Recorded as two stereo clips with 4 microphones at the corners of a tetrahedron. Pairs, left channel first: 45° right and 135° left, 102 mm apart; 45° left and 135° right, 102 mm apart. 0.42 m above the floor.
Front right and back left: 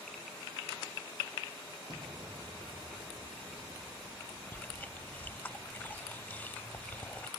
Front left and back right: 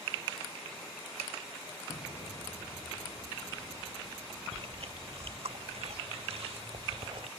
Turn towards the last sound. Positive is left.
turn(degrees=-115)